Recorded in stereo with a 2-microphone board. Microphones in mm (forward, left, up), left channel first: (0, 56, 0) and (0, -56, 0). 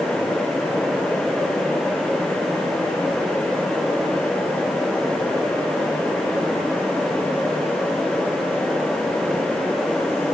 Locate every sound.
Only background noise.